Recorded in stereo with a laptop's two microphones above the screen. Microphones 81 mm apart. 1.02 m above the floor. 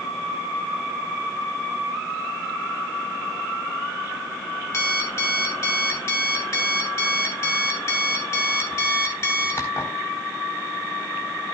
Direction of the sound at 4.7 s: 35° left (ahead or behind).